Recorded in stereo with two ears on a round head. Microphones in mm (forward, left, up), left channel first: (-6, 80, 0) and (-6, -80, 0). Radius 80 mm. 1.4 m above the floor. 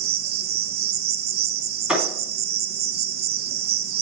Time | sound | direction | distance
0.0 | an insect | 60° right (ahead or behind) | 0.7 m
1.9 | a thud | 5° right (ahead or behind) | 2.5 m